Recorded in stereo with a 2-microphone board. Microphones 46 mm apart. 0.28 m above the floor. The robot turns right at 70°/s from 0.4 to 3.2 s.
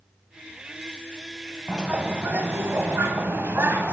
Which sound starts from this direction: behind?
A bird, at 1.7 s.